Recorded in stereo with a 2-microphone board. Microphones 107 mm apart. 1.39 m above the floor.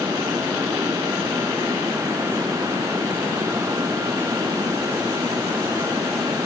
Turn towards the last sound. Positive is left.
No sound to turn to.